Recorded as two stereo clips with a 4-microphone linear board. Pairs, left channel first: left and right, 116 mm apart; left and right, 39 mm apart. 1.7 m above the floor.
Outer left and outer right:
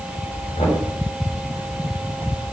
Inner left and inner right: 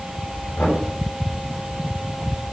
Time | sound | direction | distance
0.6 | knocking | 75° left (ahead or behind) | 6.5 m